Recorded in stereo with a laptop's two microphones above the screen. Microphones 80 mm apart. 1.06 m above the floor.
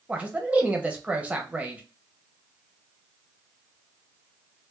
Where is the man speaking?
15° right (ahead or behind), 0.8 m.